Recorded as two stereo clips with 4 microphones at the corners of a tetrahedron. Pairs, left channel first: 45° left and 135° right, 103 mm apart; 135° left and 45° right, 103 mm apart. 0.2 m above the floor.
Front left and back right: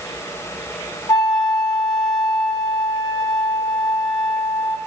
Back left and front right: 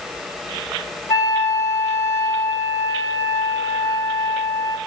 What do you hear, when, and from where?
1.1 s a flute: 85° left, 1.1 m